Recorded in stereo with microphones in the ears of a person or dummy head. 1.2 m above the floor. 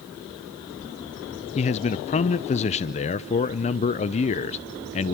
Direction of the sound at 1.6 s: 35° left (ahead or behind).